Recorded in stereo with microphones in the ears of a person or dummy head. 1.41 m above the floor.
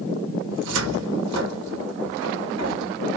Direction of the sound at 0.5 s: 65° right (ahead or behind).